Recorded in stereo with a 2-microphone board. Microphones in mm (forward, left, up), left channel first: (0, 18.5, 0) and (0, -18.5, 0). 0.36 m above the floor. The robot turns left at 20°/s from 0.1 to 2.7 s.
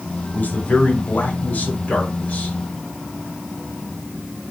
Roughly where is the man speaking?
Left.